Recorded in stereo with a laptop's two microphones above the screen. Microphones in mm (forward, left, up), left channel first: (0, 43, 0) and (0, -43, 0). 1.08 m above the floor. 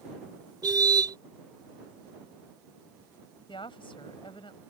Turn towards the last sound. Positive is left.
turn(degrees=85)